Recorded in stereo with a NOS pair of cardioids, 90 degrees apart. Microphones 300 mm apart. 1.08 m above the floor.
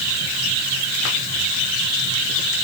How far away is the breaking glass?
I don't hear breaking glass.